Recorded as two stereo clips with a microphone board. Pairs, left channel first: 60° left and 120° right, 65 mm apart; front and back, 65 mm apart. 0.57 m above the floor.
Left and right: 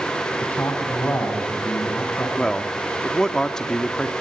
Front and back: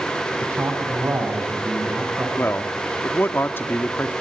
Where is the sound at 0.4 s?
120° left, 5.5 m.